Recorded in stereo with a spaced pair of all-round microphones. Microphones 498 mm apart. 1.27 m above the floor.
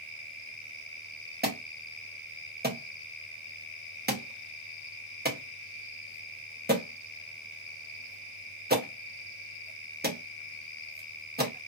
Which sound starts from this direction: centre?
An alarm, at 1.4 s.